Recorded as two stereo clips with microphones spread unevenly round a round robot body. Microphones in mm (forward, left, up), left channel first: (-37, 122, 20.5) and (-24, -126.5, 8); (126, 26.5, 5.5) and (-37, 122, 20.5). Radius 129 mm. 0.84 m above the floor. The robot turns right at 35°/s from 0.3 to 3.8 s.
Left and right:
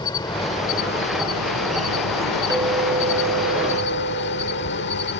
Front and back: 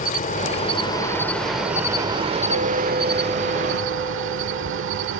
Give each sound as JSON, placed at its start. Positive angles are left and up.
{"t": 0.0, "sound": "an insect", "azimuth_deg": 20}
{"t": 2.5, "sound": "a clink", "azimuth_deg": -165}